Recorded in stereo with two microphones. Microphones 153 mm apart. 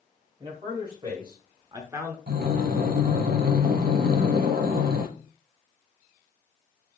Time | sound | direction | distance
0.4 | a man speaking | 30° right (ahead or behind) | 2 m
2.3 | breathing | 75° right (ahead or behind) | 0.8 m